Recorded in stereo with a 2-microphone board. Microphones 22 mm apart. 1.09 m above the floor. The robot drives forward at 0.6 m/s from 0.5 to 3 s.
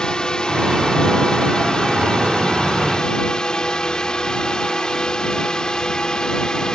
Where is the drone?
35° left (ahead or behind); by 6.8 s 30° left (ahead or behind).